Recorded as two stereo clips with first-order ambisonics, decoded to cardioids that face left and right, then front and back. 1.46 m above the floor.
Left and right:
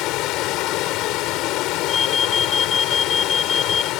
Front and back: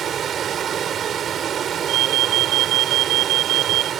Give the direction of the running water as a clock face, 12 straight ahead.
8 o'clock.